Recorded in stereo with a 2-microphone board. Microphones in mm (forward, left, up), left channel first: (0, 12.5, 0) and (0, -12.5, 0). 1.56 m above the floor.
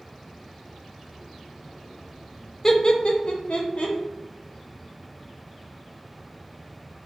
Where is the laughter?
20° left (ahead or behind), 0.5 m; by 4.0 s 65° left (ahead or behind), 0.9 m.